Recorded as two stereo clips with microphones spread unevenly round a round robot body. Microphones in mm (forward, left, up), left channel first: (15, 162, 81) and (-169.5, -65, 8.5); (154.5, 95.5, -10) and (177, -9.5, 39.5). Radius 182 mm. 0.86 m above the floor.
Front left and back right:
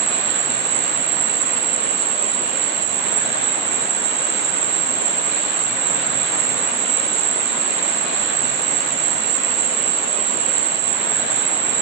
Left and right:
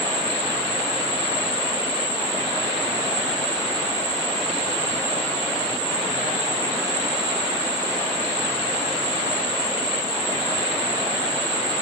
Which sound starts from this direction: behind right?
An insect, at 0.0 s.